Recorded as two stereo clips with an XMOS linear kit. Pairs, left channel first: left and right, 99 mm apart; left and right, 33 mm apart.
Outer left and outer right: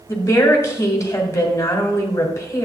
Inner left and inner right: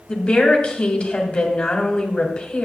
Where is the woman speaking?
30° left (ahead or behind), 1.7 m.